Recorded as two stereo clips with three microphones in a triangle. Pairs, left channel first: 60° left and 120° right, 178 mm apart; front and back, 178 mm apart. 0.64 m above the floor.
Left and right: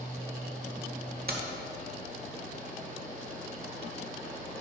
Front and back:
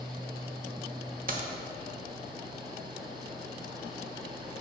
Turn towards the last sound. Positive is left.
turn(degrees=-145)